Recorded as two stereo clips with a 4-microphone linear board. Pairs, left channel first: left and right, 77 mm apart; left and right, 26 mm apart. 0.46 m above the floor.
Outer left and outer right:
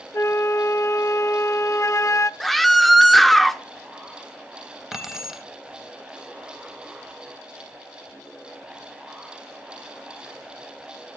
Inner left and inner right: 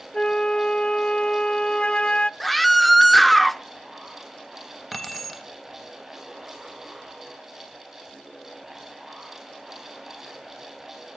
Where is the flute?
40° left (ahead or behind), 0.5 m.